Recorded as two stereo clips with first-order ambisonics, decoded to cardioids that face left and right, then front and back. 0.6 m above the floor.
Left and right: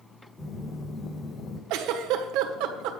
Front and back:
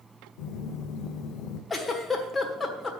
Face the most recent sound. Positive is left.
turn(degrees=-75)